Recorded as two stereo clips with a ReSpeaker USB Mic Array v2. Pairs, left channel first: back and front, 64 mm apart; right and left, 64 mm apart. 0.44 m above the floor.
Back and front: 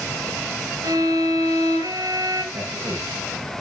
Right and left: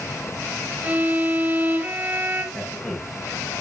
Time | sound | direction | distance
0.8 | a violin | 25° left | 3 m
2.5 | a man speaking | 25° right | 6 m